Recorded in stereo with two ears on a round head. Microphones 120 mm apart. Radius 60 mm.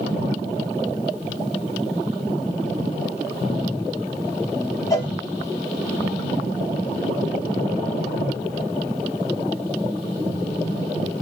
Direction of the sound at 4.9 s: 25° left (ahead or behind).